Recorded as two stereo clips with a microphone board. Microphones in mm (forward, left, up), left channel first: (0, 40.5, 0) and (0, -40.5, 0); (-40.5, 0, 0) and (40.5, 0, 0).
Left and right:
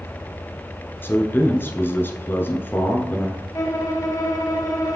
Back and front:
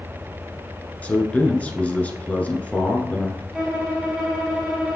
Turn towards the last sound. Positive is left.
turn(degrees=80)